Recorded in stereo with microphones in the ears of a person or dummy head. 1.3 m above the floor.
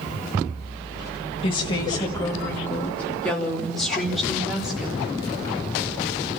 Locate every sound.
1.4 s a woman speaking: 30° left (ahead or behind), 1.9 m; by 5.1 s 5° right (ahead or behind), 4 m